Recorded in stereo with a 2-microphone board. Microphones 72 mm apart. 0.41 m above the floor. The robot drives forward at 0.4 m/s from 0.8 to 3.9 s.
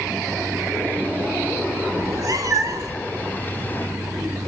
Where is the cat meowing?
60° right (ahead or behind), 1.7 m; by 3.0 s 50° right (ahead or behind), 1.9 m.